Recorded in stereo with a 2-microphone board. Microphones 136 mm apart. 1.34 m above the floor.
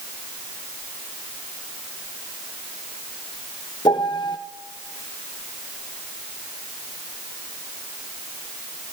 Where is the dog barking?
I don't hear a dog barking.